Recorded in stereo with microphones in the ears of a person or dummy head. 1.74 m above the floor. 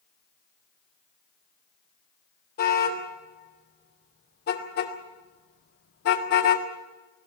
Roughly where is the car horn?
Left.